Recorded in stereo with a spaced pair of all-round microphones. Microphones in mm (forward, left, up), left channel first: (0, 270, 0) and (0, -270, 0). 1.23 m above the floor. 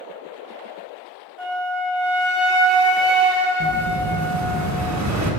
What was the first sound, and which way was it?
A flute, 65° right (ahead or behind).